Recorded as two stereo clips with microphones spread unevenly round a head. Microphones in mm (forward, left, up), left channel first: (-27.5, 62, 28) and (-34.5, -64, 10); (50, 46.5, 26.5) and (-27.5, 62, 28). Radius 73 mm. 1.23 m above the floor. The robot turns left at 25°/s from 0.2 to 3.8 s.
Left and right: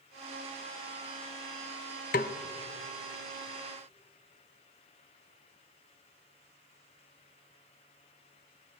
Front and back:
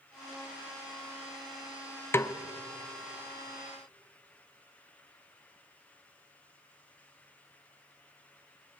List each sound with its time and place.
2.1 s a snare drum: 50° left, 0.9 m; by 2.4 s 45° left, 0.9 m